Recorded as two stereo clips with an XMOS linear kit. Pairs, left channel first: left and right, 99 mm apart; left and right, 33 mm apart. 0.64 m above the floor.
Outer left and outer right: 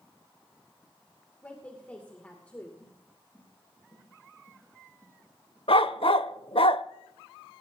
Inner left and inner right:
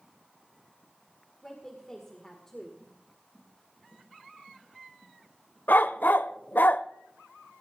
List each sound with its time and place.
1.4 s a woman speaking: 15° left (ahead or behind), 2.5 m
2.8 s footsteps: 25° left (ahead or behind), 7.5 m; by 5.6 s 20° left (ahead or behind), 9 m
5.7 s a dog barking: 70° left (ahead or behind), 0.6 m